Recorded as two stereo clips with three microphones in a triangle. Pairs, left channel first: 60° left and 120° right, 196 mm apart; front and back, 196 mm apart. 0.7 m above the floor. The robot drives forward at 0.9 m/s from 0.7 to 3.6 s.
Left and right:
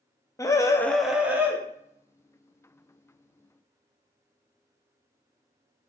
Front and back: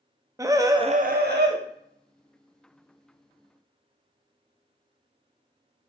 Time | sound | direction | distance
0.4 | a scream | 120° left | 0.5 m